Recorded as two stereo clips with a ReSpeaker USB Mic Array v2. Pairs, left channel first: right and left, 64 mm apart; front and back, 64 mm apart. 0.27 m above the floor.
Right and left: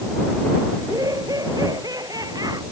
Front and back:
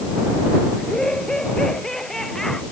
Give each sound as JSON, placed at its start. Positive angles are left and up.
{"t": 0.8, "sound": "laughter", "azimuth_deg": 80}